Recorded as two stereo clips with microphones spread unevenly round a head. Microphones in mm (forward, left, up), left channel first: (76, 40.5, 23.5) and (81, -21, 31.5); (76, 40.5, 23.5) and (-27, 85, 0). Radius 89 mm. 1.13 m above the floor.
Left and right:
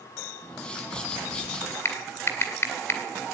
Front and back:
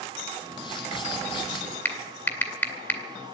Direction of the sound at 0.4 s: 20° left.